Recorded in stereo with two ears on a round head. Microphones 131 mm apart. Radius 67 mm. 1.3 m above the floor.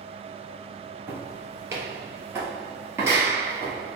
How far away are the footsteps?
About 1.5 m.